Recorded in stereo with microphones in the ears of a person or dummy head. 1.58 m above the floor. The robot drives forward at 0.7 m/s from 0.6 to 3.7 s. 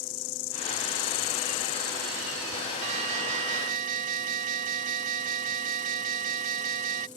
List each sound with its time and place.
0.0 s an insect: 50° left (ahead or behind); by 7.2 s 20° left (ahead or behind)
2.8 s an alarm: 40° right (ahead or behind); by 7.1 s 45° right (ahead or behind)